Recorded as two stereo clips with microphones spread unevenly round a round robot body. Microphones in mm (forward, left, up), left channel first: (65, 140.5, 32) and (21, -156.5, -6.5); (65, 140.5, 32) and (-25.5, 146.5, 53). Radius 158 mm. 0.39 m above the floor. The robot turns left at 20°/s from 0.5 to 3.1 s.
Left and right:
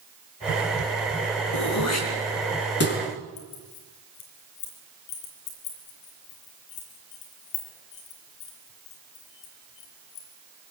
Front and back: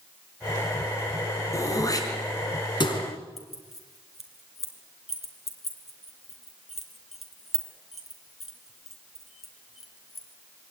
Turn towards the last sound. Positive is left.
turn(degrees=90)